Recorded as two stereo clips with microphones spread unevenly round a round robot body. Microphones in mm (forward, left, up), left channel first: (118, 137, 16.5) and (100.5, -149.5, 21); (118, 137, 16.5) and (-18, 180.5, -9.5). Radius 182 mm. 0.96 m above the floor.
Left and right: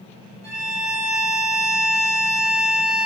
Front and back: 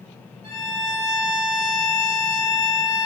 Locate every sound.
0.4 s a violin: 145° right, 0.5 m